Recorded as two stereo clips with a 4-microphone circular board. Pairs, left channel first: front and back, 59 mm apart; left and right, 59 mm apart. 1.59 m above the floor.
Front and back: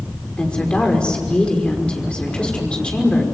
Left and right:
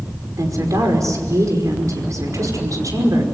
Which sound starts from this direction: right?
A woman speaking, at 0.4 s.